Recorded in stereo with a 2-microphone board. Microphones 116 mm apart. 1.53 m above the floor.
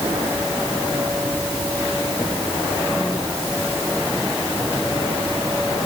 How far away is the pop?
No pop in this recording.